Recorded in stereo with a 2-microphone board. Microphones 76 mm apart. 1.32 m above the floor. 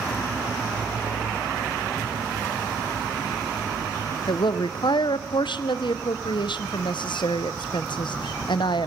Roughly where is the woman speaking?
Left.